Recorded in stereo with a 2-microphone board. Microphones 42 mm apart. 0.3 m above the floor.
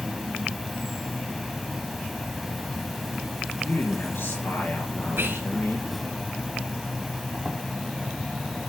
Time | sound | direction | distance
0.0 | an insect | 5° right (ahead or behind) | 0.7 m
3.6 | a man speaking | 60° left (ahead or behind) | 4.5 m
5.2 | whispering | 70° right (ahead or behind) | 2.5 m